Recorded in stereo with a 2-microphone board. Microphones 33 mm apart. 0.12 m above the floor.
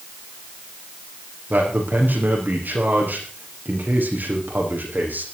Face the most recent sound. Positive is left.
turn(degrees=-65)  # may be behind; listen again after turning